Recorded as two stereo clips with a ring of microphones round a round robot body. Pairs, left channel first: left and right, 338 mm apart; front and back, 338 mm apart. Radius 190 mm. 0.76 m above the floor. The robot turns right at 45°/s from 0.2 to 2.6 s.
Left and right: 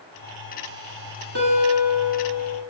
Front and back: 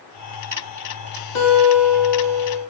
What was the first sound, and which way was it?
A guitar, 30° right.